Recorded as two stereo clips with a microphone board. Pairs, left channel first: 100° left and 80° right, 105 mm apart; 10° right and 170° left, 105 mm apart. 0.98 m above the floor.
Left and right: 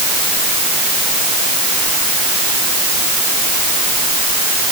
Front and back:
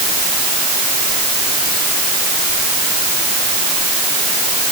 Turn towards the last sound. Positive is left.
No sound to turn to.